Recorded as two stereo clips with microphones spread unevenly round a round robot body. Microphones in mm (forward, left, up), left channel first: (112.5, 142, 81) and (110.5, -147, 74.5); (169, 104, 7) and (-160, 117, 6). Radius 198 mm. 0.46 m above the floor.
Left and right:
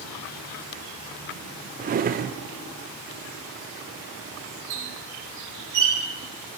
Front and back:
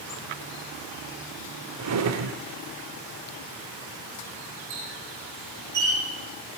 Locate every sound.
1.8 s a drawer: 145° right, 0.7 m
4.7 s a squeak: 130° right, 3.5 m